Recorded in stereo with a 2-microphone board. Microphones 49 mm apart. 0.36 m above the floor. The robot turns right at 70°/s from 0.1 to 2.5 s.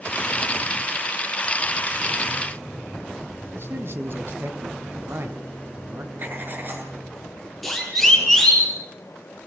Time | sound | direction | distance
3.5 | a man speaking | 55° right (ahead or behind) | 2.5 m
6.2 | writing | 45° right (ahead or behind) | 5.5 m
7.6 | a siren | centre (ahead or behind) | 7.5 m